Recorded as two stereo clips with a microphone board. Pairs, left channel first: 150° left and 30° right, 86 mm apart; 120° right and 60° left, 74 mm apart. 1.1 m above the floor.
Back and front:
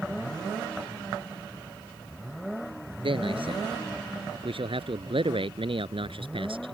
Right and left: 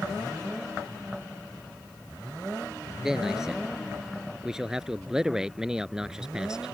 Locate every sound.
3.0 s a man speaking: 25° right; by 6.8 s 20° right